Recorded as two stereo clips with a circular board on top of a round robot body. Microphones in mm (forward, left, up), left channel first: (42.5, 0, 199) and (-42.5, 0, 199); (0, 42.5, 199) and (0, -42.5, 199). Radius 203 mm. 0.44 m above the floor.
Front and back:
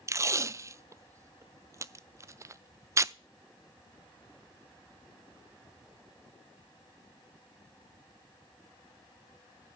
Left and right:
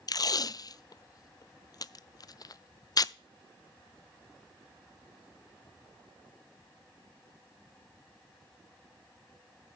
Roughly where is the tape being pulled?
Behind left.